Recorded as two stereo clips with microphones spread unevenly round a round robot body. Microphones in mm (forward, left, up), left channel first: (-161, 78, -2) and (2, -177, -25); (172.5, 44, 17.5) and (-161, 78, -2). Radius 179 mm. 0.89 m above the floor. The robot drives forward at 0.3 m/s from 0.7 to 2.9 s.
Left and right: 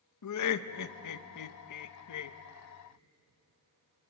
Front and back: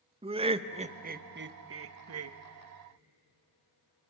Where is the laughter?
110° left, 0.7 m; by 2.4 s 140° left, 1.0 m.